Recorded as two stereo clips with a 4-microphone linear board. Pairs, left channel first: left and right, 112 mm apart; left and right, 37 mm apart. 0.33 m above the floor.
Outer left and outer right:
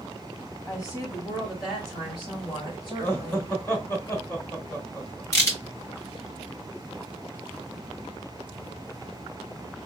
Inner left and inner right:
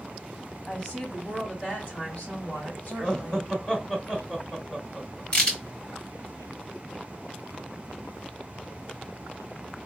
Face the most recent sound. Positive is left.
turn(degrees=30)  # may be behind; listen again after turning